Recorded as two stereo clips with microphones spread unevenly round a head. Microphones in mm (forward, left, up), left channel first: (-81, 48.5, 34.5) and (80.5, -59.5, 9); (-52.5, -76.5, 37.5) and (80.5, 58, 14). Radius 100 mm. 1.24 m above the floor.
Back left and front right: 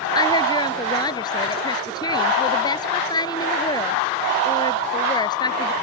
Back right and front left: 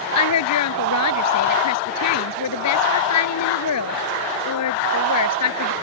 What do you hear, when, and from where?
0.1 s a woman speaking: 145° right